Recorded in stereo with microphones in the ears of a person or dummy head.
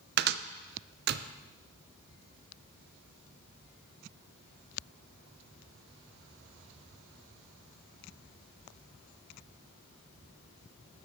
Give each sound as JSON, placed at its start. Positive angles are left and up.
{"t": 0.2, "sound": "a cupboard door", "side_deg": -55, "distance_m": 0.5}